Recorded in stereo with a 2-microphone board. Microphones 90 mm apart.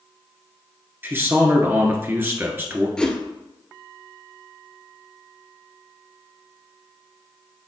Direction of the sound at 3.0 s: 10° left (ahead or behind).